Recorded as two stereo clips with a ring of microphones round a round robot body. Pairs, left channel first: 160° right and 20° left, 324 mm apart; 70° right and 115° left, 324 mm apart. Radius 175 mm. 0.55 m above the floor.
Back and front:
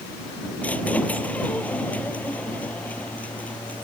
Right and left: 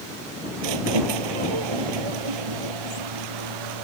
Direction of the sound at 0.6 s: 115° left.